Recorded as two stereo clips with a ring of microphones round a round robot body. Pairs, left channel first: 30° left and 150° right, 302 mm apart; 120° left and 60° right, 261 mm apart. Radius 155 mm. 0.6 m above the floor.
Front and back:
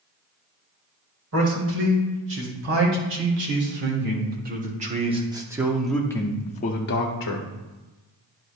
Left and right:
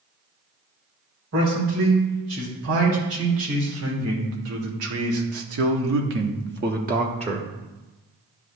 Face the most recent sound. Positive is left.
turn(degrees=10)